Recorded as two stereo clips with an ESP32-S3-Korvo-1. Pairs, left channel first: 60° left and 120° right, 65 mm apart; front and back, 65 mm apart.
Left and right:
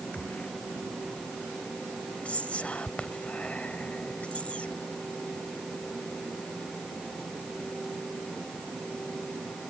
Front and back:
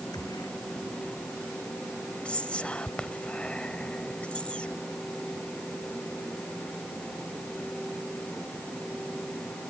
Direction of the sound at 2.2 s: 35° left.